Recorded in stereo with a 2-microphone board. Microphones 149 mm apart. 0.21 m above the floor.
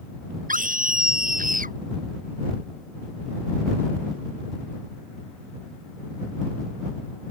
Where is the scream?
65° right (ahead or behind).